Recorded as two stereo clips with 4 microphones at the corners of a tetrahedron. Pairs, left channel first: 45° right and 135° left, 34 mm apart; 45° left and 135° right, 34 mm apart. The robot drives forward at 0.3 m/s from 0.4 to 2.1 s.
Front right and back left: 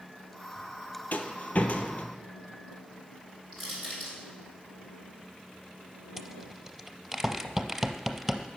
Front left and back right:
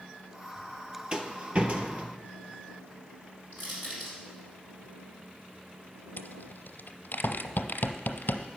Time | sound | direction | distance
1.1 | a rattle | 75° right | 0.8 m
3.5 | crushing | 140° right | 4 m
6.2 | a rattle | 55° left | 0.6 m